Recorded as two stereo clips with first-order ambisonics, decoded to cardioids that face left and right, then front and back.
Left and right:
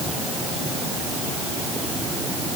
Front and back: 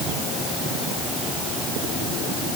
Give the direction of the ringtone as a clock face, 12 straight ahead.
No ringtone in this recording.